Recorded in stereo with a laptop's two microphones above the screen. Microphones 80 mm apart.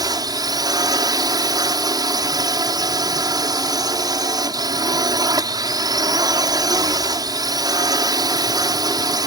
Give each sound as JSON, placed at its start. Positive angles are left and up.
{"t": 0.0, "sound": "a drone", "side_deg": -50}